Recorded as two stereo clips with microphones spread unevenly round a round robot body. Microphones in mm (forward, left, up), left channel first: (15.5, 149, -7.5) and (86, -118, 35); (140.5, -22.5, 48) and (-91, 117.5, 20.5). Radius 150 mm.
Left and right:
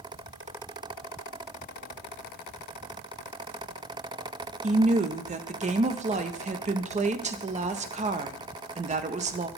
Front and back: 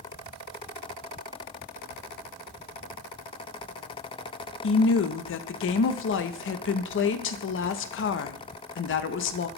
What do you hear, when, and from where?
4.6 s a woman speaking: 10° right, 0.6 m